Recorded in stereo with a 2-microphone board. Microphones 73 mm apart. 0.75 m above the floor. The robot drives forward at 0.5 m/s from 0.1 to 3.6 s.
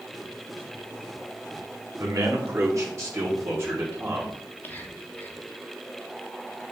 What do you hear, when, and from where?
2.0 s a man speaking: 55° right (ahead or behind), 1.7 m; by 4.4 s 40° right (ahead or behind), 2 m
4.6 s whispering: 25° left (ahead or behind), 1.2 m